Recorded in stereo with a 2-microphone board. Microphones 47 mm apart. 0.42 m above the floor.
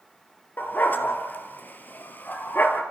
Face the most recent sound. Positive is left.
turn(degrees=40)  # may be behind; listen again after turning